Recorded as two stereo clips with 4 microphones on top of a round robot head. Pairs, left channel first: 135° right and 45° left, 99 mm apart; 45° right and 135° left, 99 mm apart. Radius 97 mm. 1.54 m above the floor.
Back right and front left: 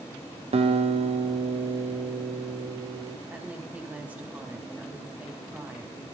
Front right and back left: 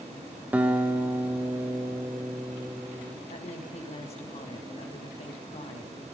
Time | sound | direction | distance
0.5 | a guitar | 60° left | 1.3 m
3.3 | a woman speaking | 30° right | 3 m